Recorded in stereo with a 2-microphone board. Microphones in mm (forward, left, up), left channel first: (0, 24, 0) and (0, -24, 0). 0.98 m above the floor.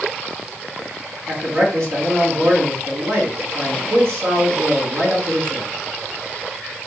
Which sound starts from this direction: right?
A man speaking, at 1.3 s.